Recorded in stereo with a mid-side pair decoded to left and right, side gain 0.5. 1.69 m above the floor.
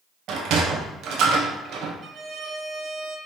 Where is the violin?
50° right, 0.9 m.